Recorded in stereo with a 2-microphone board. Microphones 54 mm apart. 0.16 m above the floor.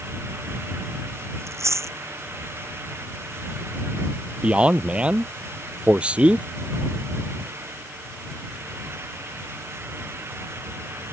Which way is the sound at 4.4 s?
20° right (ahead or behind).